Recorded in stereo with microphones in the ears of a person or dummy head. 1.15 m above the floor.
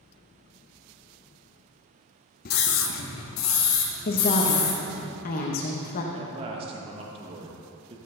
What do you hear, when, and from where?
2.5 s a scream: 50° left (ahead or behind), 0.7 m; by 5.0 s 80° left, 4 m
4.0 s a woman speaking: 45° left (ahead or behind), 1.0 m
6.1 s a man speaking: 35° right (ahead or behind), 1.1 m